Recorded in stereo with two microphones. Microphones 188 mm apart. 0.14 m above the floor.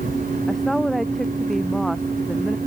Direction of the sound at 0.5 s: Centre (ahead or behind).